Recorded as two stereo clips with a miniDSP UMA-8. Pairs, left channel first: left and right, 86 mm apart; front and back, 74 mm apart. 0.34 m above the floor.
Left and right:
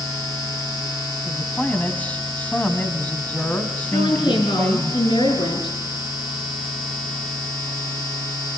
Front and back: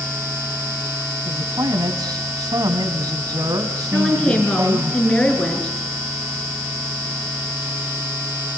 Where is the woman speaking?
75° left, 5 m.